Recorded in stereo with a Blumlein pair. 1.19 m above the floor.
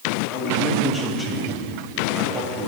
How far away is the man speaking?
About 1.3 m.